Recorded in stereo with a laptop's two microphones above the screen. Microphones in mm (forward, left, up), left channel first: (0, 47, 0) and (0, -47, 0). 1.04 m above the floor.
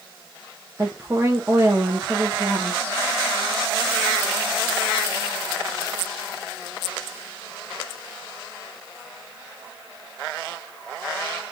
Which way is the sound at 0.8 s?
30° right (ahead or behind).